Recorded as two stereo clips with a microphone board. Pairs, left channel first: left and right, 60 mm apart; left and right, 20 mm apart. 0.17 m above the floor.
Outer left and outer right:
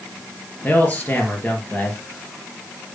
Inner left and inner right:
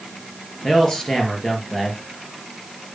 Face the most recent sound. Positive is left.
turn(degrees=25)  # may be behind; listen again after turning